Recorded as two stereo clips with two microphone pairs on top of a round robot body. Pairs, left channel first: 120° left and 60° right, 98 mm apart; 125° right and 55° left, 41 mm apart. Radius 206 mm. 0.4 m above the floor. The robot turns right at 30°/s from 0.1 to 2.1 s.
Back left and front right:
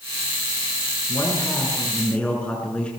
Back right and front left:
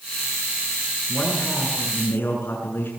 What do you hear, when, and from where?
1.1 s a man speaking: 170° left, 7 m; by 2.9 s 160° right, 7 m